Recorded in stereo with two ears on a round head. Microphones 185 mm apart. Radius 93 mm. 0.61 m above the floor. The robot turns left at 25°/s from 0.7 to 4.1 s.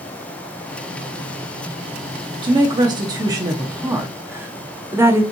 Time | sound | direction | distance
2.4 | a woman speaking | 20° right (ahead or behind) | 0.8 m